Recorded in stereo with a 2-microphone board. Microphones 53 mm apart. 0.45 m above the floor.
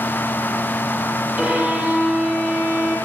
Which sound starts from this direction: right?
A violin, at 1.4 s.